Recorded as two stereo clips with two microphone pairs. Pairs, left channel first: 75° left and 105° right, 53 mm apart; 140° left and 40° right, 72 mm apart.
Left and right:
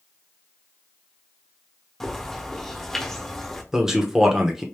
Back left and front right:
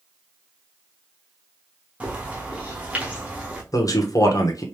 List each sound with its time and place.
2.0 s a bird: 5° left, 1.2 m
3.7 s a man speaking: 175° left, 1.0 m